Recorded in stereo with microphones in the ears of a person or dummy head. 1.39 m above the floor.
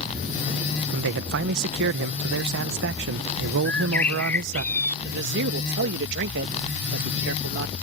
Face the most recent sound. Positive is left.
turn(degrees=-65)  # may be behind; listen again after turning